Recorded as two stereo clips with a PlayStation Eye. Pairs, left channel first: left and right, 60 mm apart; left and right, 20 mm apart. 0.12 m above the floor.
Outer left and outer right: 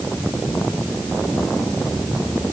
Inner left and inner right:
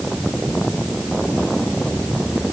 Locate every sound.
Only background noise.